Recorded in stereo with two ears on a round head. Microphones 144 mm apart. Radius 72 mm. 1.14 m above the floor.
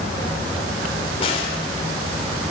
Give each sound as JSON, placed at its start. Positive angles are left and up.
{"t": 1.2, "sound": "a crack", "side_deg": 35, "distance_m": 3.5}